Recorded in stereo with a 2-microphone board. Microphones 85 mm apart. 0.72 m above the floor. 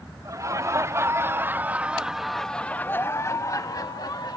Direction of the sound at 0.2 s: 40° right (ahead or behind).